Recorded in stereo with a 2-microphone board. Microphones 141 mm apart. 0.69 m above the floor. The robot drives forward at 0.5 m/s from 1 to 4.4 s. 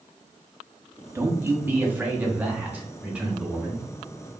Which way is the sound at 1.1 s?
15° right (ahead or behind).